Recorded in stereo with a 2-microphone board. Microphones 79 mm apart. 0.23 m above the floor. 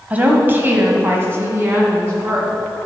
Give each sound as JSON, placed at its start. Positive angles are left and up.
{"t": 0.1, "sound": "a woman speaking", "side_deg": -20, "distance_m": 1.0}